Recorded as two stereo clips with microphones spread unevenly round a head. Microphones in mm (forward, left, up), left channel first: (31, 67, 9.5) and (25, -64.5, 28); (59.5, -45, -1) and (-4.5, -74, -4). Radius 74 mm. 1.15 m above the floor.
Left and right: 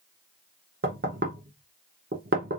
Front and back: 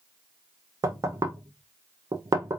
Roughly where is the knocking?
Behind right.